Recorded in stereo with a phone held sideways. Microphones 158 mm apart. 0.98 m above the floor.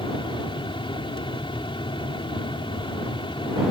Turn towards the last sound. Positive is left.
turn(degrees=35)  # may be behind; listen again after turning